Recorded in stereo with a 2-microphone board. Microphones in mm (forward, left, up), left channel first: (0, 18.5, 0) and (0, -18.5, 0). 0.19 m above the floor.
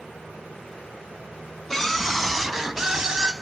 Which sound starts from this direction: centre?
A scream, at 1.7 s.